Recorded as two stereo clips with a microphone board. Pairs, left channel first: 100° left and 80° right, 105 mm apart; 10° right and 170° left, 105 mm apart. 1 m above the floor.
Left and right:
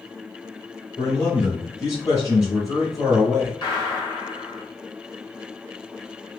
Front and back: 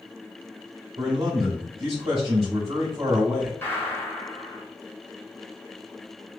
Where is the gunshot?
60° left, 1.0 m.